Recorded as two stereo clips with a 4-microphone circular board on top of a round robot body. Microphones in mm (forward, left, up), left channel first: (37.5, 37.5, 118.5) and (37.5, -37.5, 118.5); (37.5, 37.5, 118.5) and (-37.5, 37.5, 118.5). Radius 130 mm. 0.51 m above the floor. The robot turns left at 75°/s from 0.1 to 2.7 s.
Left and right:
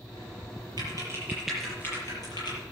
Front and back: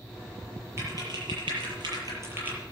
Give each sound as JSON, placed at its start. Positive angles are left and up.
{"t": 0.8, "sound": "typing on a keyboard", "azimuth_deg": -120, "distance_m": 7.5}